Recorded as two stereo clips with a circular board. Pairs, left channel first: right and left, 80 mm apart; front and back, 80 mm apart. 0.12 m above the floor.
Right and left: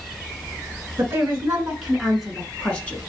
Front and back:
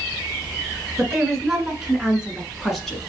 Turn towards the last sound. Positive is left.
turn(degrees=-90)